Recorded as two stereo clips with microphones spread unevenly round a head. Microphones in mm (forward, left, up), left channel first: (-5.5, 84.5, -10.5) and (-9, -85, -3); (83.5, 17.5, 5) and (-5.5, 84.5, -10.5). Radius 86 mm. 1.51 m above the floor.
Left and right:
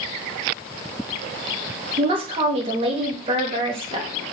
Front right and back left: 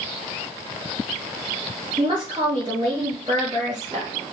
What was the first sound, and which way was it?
A woman speaking, 150° right.